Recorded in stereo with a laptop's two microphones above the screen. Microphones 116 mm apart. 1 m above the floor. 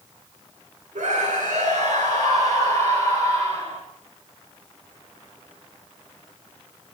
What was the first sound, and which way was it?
A scream, 85° right.